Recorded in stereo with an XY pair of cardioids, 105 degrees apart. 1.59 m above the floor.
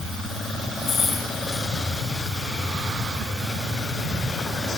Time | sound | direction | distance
0.8 | keys jangling | 55° left | 5.5 m